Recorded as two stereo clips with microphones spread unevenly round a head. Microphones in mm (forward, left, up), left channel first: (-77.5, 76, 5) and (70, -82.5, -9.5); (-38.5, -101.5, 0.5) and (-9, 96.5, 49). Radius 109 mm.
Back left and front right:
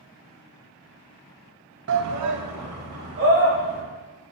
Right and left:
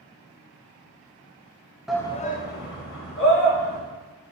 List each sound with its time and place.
1.9 s a shout: 5° right, 0.6 m; by 3.8 s 80° right, 2.5 m